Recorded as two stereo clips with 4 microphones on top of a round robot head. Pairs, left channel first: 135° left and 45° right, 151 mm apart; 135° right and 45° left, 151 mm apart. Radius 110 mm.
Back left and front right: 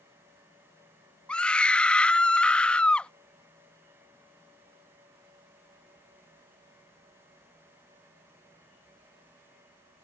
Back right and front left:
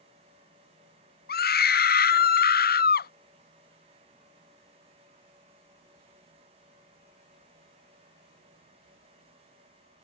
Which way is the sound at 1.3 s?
140° right.